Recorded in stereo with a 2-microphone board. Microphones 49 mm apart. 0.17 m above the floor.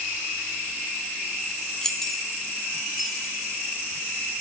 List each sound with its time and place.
1.8 s keys jangling: 10° left (ahead or behind), 0.8 m; by 3.5 s centre (ahead or behind), 3 m